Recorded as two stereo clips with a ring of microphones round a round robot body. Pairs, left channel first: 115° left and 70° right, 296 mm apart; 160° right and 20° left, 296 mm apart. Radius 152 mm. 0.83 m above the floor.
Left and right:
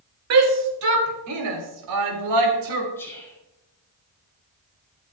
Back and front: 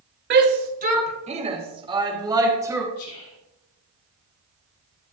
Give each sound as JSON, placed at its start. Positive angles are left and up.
{"t": 0.3, "sound": "a shout", "azimuth_deg": -30, "distance_m": 2.5}
{"t": 3.0, "sound": "whispering", "azimuth_deg": -165, "distance_m": 4.0}